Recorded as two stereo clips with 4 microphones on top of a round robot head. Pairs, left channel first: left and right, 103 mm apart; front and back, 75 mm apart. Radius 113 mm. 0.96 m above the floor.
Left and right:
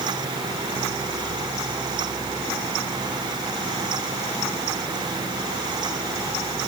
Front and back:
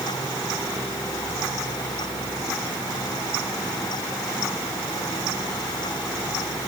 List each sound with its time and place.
Only background noise.